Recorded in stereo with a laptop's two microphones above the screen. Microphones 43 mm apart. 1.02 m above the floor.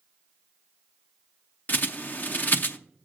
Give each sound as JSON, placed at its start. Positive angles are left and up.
{"t": 1.7, "sound": "a bird", "side_deg": 45, "distance_m": 0.6}